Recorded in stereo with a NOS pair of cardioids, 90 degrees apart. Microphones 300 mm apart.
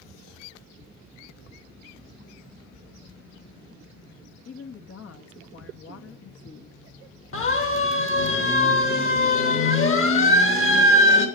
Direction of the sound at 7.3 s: 45° left.